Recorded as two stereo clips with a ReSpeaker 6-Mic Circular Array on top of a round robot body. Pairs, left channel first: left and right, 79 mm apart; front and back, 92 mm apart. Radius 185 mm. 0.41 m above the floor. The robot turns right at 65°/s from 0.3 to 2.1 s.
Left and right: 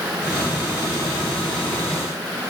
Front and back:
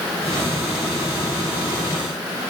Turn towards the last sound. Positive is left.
No sound to turn to.